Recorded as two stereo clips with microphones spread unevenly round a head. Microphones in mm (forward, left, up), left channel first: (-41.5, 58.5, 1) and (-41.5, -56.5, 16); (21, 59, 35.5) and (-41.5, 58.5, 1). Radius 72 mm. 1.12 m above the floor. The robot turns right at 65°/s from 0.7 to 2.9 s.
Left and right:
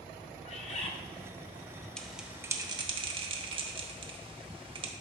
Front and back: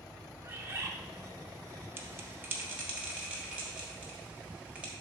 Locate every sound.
0.4 s a bird: 115° left, 0.9 m; by 0.9 s 130° left, 0.9 m
2.0 s a bell: 165° left, 0.9 m; by 4.9 s 135° right, 0.9 m